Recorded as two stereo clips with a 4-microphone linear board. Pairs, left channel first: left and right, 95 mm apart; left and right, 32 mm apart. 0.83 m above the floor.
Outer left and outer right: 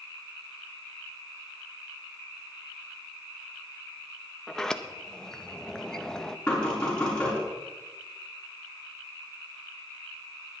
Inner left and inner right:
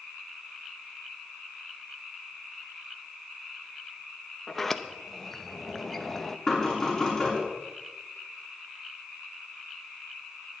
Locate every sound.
4.5 s a sliding door: 5° left (ahead or behind), 0.6 m
6.5 s knocking: 10° left (ahead or behind), 5.5 m